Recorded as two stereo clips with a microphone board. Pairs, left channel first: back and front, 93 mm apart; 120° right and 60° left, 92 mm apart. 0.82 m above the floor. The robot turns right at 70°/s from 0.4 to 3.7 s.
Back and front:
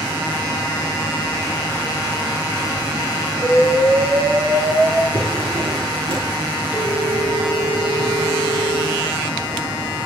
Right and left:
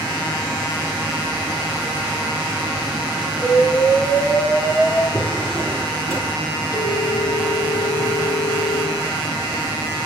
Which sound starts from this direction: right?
A phone ringing, at 6.7 s.